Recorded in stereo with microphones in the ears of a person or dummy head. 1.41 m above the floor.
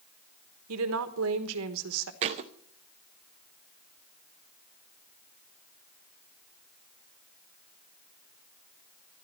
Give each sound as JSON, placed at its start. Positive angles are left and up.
{"t": 0.7, "sound": "a woman speaking", "side_deg": -80, "distance_m": 1.3}
{"t": 2.2, "sound": "a thud", "side_deg": -35, "distance_m": 0.8}